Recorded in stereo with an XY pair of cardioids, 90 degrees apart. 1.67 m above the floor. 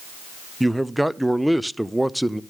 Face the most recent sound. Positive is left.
turn(degrees=-5)